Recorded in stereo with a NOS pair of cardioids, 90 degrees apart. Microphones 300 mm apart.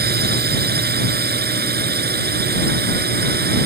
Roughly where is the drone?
Ahead right.